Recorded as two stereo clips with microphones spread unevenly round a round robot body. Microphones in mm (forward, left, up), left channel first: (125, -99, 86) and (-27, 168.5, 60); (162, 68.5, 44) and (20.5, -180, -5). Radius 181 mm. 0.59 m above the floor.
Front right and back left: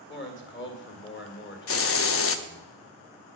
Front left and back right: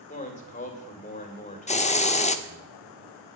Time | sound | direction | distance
0.1 | a man speaking | 10° right | 2 m
1.7 | a hiss | 10° right | 0.7 m